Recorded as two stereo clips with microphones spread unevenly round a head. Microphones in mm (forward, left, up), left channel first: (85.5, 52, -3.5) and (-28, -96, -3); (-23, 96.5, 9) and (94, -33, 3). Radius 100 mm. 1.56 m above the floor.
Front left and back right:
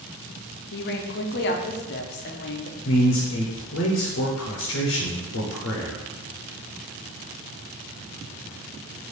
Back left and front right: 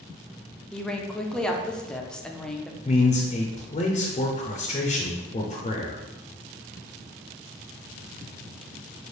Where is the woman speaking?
50° left, 0.6 m.